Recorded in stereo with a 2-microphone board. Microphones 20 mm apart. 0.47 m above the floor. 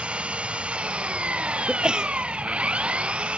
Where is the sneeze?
45° right (ahead or behind).